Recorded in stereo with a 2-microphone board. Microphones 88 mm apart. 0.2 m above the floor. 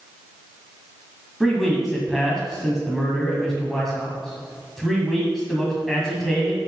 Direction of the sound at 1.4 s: Centre (ahead or behind).